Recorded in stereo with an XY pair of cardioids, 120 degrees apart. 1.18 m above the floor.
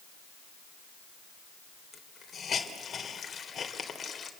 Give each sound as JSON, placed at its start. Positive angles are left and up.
{"t": 1.9, "sound": "a hiss", "azimuth_deg": 35, "distance_m": 3.5}